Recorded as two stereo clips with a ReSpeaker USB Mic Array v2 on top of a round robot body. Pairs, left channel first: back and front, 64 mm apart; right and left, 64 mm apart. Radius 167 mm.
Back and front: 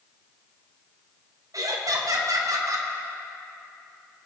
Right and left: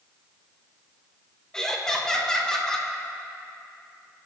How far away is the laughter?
About 2 m.